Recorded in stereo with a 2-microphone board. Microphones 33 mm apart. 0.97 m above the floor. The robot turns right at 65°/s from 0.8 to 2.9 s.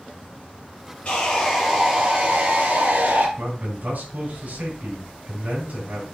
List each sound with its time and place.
1.1 s sawing: 145° left, 4 m; by 3.3 s 95° right, 4 m
3.4 s a man speaking: 60° right (ahead or behind), 4.5 m